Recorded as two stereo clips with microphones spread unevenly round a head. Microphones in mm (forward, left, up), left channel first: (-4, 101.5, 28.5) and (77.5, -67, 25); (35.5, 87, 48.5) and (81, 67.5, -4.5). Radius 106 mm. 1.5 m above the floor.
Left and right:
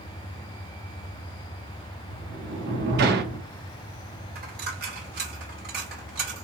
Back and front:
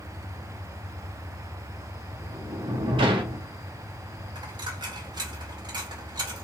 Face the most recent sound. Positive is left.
turn(degrees=-30)